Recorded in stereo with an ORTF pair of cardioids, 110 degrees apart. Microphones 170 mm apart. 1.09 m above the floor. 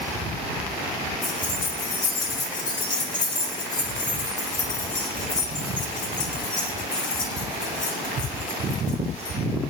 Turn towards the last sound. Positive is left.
turn(degrees=45)